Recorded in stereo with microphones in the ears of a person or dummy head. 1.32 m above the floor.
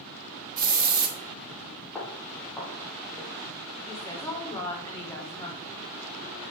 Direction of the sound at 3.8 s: 15° left (ahead or behind).